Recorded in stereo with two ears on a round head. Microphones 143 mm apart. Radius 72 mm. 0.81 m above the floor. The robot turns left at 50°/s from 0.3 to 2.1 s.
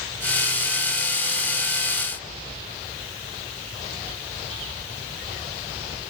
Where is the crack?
I don't hear a crack.